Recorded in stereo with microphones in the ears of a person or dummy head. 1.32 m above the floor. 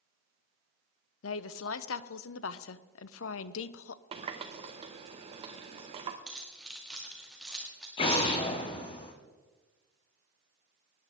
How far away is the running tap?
About 0.6 m.